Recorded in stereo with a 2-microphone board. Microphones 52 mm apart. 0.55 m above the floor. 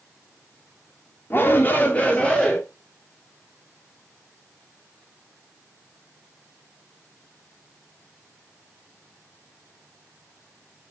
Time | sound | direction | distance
1.3 | a shout | 40° left (ahead or behind) | 1.3 m